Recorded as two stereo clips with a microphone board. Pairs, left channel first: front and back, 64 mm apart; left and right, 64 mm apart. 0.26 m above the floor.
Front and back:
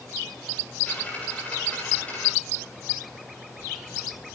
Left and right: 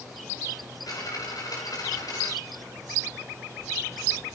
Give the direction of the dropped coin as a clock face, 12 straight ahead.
10 o'clock.